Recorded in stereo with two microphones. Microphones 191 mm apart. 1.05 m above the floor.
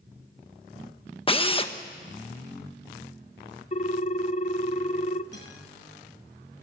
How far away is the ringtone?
About 0.6 m.